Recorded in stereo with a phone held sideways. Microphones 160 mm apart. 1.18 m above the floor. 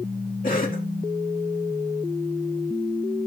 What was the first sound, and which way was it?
A cough, 60° left (ahead or behind).